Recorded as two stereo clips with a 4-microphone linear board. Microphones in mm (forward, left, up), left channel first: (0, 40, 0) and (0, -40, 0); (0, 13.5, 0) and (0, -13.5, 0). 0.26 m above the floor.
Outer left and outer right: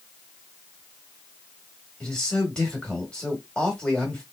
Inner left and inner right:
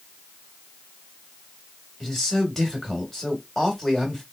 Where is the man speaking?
15° left (ahead or behind), 1.5 m.